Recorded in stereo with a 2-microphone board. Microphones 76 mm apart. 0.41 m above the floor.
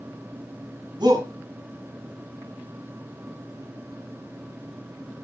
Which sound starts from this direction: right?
A shout, at 1.0 s.